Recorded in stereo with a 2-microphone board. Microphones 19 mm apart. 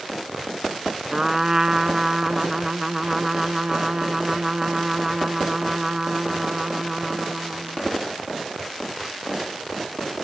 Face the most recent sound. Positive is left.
turn(degrees=-25)  # may be behind; listen again after turning